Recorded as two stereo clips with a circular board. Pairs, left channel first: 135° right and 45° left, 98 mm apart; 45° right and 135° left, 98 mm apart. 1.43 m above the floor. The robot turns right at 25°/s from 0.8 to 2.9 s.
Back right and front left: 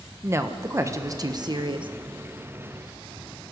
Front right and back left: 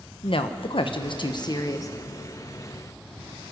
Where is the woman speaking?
15° right, 1.1 m; by 1.9 s 10° left, 1.1 m.